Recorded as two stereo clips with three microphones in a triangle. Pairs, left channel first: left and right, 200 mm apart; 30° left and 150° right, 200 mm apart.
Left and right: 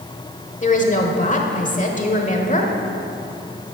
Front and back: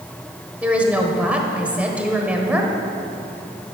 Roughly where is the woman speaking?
Behind left.